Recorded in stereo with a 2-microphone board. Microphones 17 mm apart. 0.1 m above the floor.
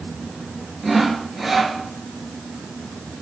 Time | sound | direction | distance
0.8 | sawing | centre (ahead or behind) | 2 m